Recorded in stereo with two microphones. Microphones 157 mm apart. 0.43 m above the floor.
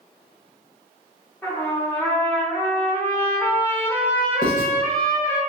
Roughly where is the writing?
Left.